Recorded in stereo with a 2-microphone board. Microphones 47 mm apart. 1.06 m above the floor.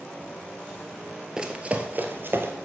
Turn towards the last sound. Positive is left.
turn(degrees=-55)  # may be behind; listen again after turning